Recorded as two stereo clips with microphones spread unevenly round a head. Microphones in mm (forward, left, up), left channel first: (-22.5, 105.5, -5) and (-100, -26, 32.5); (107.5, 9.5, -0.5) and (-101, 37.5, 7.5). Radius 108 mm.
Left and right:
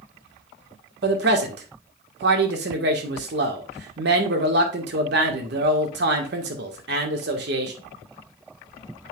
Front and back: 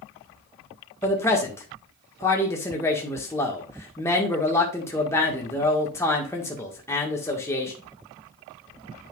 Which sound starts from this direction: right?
A man speaking, at 1.0 s.